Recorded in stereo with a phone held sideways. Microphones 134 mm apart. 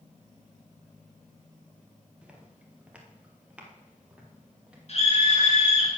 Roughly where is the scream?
Left.